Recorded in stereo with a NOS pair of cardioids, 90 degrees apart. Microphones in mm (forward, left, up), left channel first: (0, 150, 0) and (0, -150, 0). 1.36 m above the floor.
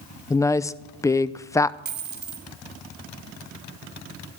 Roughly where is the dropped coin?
Ahead right.